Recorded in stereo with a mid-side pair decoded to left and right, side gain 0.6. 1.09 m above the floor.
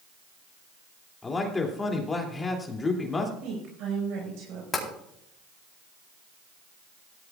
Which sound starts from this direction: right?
A woman speaking, at 3.4 s.